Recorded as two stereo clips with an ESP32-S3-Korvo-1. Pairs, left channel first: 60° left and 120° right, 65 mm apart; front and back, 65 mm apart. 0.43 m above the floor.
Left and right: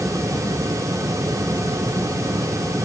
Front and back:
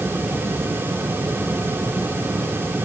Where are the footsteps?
I don't hear footsteps.